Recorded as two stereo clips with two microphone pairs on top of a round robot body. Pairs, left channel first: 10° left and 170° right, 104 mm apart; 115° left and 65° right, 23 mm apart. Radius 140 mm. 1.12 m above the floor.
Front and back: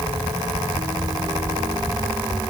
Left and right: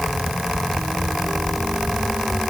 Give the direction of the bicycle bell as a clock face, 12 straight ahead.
I don't hear a bicycle bell.